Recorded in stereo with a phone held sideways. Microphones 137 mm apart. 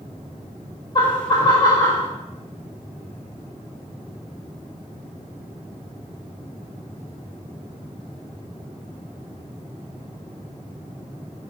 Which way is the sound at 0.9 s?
35° left (ahead or behind).